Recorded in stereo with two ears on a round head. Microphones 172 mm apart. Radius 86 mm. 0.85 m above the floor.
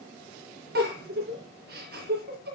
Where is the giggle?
50° right (ahead or behind), 3.5 m.